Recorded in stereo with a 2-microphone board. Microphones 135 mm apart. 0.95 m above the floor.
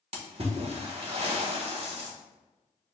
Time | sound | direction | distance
0.1 | a splash | 50° right (ahead or behind) | 1.1 m